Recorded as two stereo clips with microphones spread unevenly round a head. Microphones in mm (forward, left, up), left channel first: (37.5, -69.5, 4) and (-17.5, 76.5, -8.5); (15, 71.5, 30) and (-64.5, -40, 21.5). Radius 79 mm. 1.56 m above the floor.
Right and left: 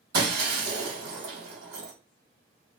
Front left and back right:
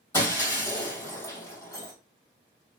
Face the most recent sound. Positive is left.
turn(degrees=120)